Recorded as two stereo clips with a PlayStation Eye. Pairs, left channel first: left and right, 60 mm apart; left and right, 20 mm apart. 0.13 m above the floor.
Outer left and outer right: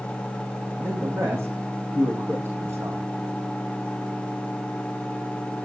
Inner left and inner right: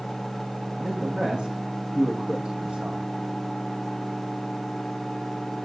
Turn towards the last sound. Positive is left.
turn(degrees=-55)  # may be behind; listen again after turning